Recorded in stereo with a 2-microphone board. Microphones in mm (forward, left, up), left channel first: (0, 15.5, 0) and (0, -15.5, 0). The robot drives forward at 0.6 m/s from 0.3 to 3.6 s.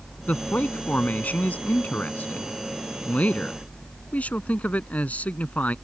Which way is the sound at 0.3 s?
65° left (ahead or behind).